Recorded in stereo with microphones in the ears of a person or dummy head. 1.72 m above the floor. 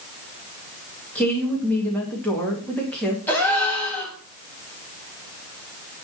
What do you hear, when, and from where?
1.1 s a woman speaking: 10° left (ahead or behind), 2 m
3.3 s a gasp: 5° left (ahead or behind), 2.5 m